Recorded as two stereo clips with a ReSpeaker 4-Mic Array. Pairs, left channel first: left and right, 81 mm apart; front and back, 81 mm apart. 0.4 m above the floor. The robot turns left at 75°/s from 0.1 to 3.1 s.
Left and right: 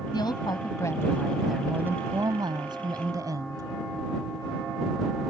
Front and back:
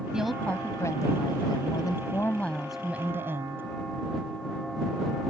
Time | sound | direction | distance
0.1 | a woman speaking | 100° left | ?